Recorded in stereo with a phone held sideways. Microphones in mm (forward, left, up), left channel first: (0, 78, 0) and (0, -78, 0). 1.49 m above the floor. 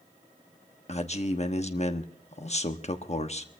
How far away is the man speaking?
About 1.1 m.